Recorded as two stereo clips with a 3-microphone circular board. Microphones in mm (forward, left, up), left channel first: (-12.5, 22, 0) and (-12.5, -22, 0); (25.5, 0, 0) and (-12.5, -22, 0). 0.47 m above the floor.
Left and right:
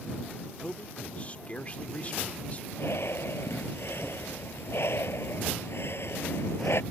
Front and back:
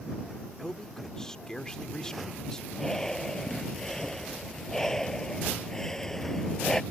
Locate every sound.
0.6 s a man speaking: 95° left
2.7 s breathing: 110° left